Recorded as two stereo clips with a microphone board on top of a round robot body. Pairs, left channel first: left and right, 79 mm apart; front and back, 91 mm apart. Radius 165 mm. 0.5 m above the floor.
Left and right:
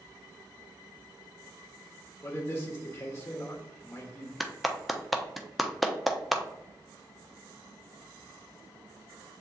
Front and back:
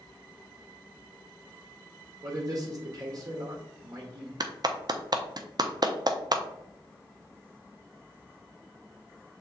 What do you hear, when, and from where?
2.2 s a man speaking: 145° left, 1.5 m
4.4 s a clap: straight behind, 0.9 m